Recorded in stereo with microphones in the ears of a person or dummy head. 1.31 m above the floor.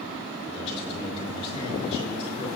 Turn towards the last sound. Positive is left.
turn(degrees=25)  # may be behind; listen again after turning